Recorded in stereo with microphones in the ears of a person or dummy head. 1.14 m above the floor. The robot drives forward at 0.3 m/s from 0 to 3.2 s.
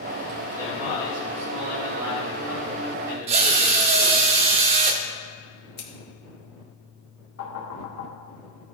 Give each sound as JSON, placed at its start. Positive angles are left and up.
{"t": 0.5, "sound": "a man speaking", "side_deg": -10, "distance_m": 3.0}
{"t": 3.3, "sound": "a drill", "side_deg": -35, "distance_m": 0.7}
{"t": 5.8, "sound": "scissors", "side_deg": 60, "distance_m": 1.9}
{"t": 7.4, "sound": "knocking", "side_deg": 80, "distance_m": 2.0}